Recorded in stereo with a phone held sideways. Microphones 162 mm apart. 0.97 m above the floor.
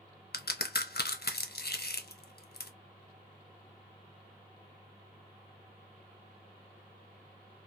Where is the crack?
80° left, 0.5 m.